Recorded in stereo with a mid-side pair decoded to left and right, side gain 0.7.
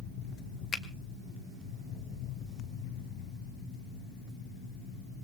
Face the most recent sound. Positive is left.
turn(degrees=30)